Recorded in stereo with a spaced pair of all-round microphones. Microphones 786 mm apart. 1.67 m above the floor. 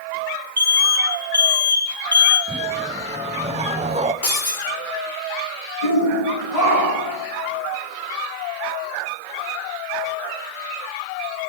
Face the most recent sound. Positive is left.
turn(degrees=50)  # may be behind; listen again after turning